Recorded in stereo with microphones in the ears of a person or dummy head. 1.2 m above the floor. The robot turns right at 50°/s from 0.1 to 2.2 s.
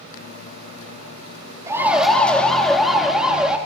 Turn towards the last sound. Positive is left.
turn(degrees=-10)  # may be behind; listen again after turning